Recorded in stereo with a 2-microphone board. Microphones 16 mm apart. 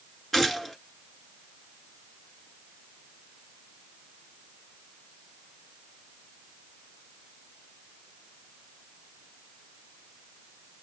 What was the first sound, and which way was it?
A gunshot, 15° left (ahead or behind).